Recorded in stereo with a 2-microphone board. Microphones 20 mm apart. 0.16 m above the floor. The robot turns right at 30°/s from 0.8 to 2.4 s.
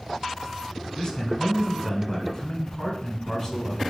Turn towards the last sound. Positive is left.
turn(degrees=130)